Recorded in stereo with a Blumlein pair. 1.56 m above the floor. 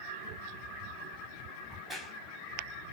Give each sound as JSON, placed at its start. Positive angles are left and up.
{"t": 1.7, "sound": "a crack", "azimuth_deg": 0, "distance_m": 1.4}